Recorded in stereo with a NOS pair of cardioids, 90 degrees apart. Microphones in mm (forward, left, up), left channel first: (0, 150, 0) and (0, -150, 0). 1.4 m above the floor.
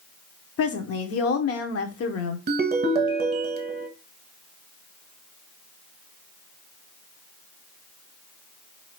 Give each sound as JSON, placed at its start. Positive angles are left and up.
{"t": 0.6, "sound": "a woman speaking", "azimuth_deg": 55, "distance_m": 1.0}
{"t": 2.5, "sound": "a ringtone", "azimuth_deg": -35, "distance_m": 1.1}